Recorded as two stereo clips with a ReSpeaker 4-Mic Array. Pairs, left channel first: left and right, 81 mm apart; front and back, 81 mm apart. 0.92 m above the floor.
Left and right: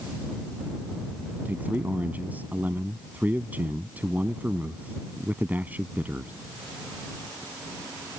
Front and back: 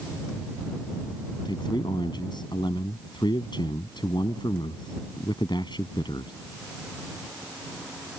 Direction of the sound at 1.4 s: 20° right.